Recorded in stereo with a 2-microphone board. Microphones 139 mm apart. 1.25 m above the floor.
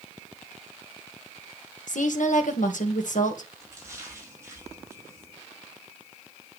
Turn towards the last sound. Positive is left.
turn(degrees=-20)  # may be behind; listen again after turning